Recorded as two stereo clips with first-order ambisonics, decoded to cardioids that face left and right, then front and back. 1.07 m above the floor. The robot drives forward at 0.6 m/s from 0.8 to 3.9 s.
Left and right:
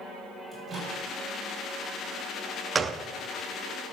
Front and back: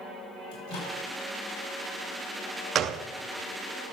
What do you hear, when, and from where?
0.5 s a microwave: 10° right, 6 m
2.8 s a gunshot: 155° right, 0.5 m; by 3.0 s 165° right, 0.6 m